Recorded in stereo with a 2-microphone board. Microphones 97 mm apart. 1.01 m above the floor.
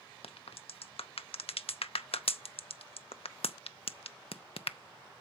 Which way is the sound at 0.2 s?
80° left.